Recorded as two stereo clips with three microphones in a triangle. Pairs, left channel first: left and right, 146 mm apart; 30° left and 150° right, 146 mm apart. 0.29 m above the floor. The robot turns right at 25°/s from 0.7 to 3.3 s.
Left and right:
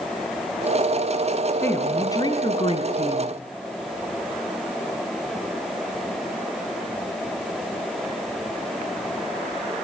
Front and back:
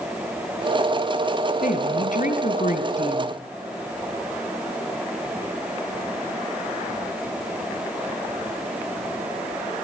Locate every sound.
1.6 s a woman speaking: 15° left, 2.5 m; by 3.4 s 60° left, 2.5 m